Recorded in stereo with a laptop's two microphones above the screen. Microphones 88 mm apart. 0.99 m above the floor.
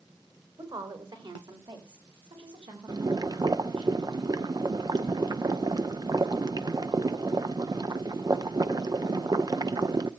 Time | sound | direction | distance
0.6 | a woman speaking | 60° right (ahead or behind) | 3.5 m
2.9 | boiling | 50° right (ahead or behind) | 0.6 m